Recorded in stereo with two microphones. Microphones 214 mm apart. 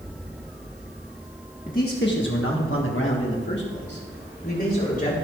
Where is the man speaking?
40° left (ahead or behind), 1.4 m; by 5.1 s 45° left (ahead or behind), 4 m.